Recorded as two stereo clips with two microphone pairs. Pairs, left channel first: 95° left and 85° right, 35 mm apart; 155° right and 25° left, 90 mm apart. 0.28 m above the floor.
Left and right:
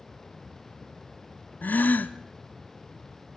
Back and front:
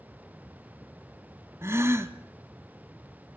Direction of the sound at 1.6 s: 80° left.